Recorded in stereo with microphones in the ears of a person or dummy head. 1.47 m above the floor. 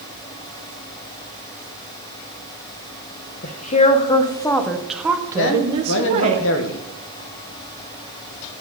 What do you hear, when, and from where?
3.4 s a woman speaking: 50° left (ahead or behind), 1.0 m; by 6.4 s 40° right (ahead or behind), 1.2 m
5.4 s a man speaking: 70° left (ahead or behind), 1.1 m